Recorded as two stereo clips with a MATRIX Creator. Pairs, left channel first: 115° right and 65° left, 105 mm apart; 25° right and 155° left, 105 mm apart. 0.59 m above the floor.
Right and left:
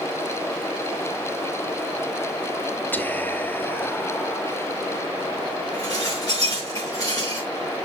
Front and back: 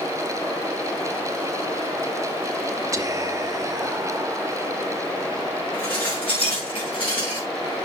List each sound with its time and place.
2.9 s whispering: 170° right, 0.7 m
5.7 s dishes clattering: 55° right, 4.5 m